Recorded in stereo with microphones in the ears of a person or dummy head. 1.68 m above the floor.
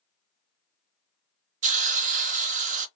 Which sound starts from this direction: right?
A hiss, at 1.6 s.